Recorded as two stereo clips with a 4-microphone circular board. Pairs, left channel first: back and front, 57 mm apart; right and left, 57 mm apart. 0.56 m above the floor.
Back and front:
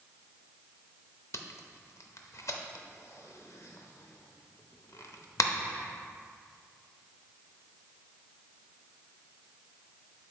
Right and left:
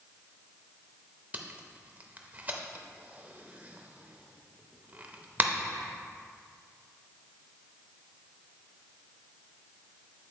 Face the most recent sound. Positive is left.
turn(degrees=150)